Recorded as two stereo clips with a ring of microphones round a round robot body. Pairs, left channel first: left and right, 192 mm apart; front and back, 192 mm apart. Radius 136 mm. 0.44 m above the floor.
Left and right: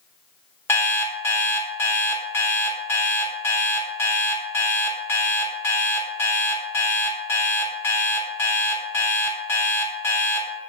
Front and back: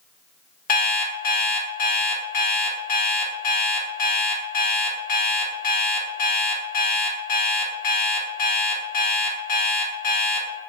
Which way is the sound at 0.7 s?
15° left.